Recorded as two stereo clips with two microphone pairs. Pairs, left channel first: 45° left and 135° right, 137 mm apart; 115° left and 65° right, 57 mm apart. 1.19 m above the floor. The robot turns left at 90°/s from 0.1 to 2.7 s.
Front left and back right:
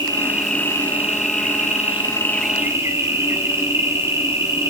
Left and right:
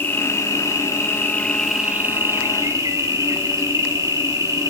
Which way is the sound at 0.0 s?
165° left.